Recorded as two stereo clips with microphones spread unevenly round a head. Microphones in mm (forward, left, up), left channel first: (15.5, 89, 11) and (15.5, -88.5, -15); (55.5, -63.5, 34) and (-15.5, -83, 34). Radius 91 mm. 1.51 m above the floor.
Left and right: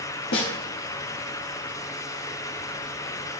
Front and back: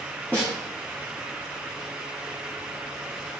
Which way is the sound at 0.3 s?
95° left.